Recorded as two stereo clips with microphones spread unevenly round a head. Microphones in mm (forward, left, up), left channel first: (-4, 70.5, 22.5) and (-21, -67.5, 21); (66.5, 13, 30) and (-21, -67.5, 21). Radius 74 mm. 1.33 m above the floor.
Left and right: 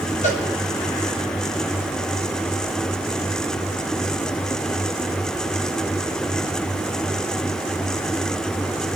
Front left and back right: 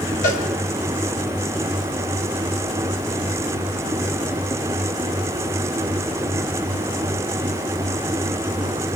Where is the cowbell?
35° left, 4 m.